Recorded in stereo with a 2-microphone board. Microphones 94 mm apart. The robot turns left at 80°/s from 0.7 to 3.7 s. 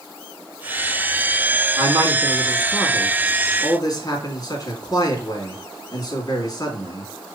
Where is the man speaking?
80° right, 2.5 m; by 7.0 s 125° left, 2.5 m.